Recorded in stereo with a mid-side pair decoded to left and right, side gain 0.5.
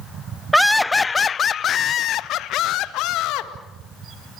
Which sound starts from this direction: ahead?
Laughter, at 0.5 s.